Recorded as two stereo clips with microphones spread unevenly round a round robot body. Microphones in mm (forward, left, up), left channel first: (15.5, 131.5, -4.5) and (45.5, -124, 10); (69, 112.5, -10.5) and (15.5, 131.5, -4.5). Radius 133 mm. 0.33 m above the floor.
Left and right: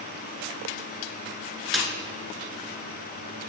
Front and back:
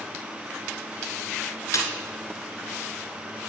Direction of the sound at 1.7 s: 5° left.